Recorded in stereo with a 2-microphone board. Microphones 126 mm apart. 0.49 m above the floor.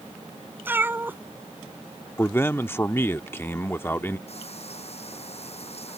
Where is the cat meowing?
15° right (ahead or behind).